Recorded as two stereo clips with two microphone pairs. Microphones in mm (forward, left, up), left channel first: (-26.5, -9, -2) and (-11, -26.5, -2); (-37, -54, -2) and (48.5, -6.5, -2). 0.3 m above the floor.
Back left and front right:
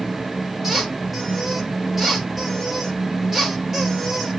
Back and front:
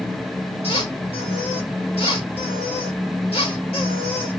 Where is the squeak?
130° right, 2.5 m.